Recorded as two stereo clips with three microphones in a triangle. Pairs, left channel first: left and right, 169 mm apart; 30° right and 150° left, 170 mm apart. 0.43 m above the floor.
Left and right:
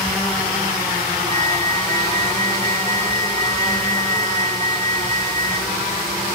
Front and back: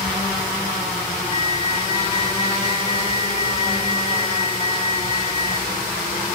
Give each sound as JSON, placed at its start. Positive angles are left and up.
{"t": 1.3, "sound": "a flute", "azimuth_deg": 20}